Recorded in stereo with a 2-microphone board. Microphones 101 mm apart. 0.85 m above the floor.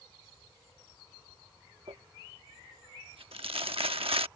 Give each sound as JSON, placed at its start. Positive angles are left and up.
{"t": 1.9, "sound": "crumpling", "side_deg": -80}